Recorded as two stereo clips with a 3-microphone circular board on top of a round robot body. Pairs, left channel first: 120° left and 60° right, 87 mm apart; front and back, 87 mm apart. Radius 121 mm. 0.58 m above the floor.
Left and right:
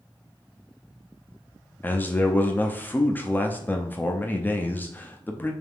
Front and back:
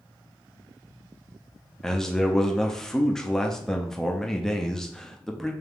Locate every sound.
1.8 s a man speaking: 80° left, 0.6 m